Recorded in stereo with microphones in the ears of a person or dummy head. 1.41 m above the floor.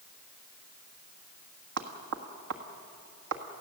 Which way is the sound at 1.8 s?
60° right (ahead or behind).